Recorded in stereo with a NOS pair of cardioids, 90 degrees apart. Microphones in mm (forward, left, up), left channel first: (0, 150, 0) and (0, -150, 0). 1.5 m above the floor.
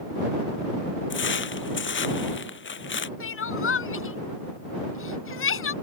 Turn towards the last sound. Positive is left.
turn(degrees=45)